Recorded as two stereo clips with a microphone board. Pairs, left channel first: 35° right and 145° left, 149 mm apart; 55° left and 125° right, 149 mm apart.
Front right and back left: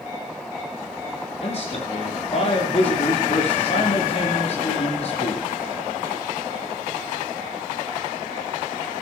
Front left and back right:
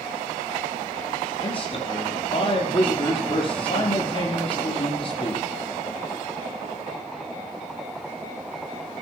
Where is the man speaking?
5° left, 6 m.